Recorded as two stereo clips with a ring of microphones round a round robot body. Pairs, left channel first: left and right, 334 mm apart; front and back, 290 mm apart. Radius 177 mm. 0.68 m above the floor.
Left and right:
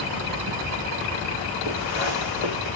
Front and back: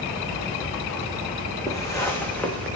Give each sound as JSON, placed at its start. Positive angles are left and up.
{"t": 1.7, "sound": "footsteps", "azimuth_deg": 80, "distance_m": 3.5}